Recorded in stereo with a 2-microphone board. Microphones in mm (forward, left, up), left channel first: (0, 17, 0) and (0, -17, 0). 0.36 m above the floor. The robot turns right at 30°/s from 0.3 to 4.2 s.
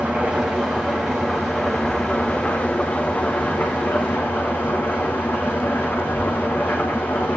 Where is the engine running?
35° right, 6.5 m; by 7.4 s 80° left, 6.5 m.